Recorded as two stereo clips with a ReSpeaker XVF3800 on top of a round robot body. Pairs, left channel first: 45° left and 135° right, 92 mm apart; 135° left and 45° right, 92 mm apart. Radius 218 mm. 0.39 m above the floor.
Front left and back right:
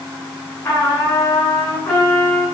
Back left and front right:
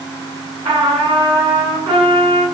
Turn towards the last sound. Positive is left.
turn(degrees=-15)